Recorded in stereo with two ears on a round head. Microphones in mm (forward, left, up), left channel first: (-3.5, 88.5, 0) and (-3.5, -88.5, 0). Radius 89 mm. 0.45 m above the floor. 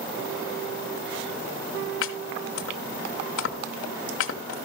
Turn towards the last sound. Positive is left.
turn(degrees=70)  # may be behind; listen again after turning